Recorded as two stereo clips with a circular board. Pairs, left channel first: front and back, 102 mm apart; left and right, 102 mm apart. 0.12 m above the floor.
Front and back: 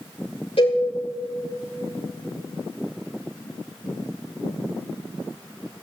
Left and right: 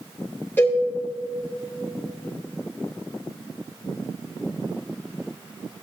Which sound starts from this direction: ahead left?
A cowbell, at 0.6 s.